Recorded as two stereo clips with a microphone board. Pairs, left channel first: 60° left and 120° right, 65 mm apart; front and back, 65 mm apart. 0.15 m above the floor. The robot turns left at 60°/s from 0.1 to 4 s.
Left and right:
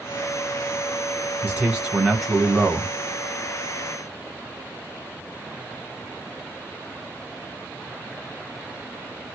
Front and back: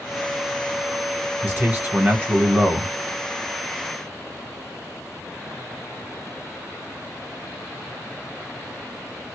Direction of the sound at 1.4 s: 150° right.